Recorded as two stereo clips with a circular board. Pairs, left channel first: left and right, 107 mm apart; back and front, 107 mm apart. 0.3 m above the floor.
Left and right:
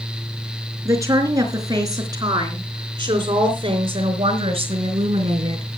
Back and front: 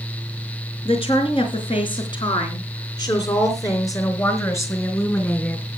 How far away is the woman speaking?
About 4 m.